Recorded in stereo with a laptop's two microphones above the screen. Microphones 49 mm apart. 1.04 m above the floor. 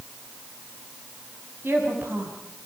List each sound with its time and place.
1.6 s a woman speaking: 50° right (ahead or behind), 7.5 m